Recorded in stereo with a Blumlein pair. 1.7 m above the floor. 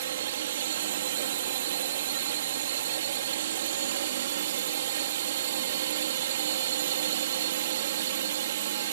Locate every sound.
0.0 s a drone: 60° right